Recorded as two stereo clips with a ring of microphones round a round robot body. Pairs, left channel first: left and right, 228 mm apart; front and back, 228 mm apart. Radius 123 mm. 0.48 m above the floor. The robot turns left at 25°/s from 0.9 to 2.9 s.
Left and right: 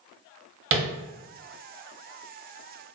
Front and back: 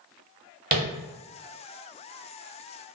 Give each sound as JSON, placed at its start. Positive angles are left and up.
{"t": 0.7, "sound": "tapping", "azimuth_deg": -125, "distance_m": 1.0}